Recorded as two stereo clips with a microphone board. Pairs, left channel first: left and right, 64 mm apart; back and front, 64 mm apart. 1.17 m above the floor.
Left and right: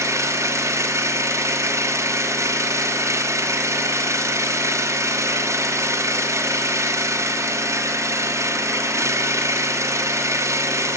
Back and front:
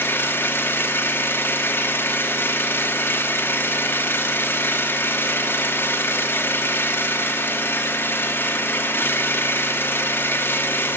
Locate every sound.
0.0 s an engine running: 130° right, 0.9 m